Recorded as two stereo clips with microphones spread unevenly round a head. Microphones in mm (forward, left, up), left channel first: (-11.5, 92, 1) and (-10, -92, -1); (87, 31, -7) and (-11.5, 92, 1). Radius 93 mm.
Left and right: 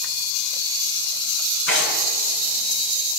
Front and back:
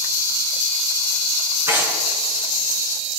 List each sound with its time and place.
1.7 s tearing paper: 80° left, 5.5 m